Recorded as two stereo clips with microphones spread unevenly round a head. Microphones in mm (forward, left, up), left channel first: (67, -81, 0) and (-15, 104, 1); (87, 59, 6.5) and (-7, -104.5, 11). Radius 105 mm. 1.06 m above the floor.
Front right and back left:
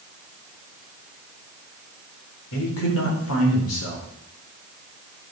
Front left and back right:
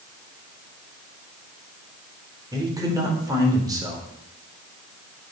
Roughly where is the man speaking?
Ahead right.